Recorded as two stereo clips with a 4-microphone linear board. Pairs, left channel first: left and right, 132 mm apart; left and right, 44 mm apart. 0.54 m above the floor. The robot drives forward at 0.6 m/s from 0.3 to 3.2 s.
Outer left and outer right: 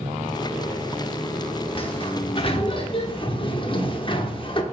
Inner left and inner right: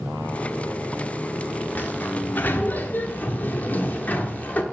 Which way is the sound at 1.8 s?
40° left (ahead or behind).